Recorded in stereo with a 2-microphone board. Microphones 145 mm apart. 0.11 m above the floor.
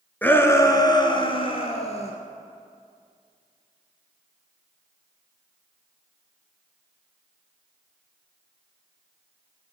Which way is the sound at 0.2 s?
10° left (ahead or behind).